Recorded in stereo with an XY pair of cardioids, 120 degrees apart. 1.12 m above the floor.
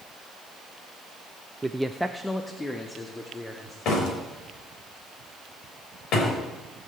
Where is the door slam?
70° left, 4.5 m.